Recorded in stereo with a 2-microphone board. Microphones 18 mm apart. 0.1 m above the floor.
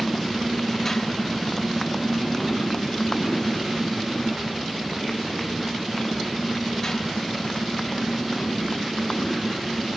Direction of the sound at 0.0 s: 15° left (ahead or behind).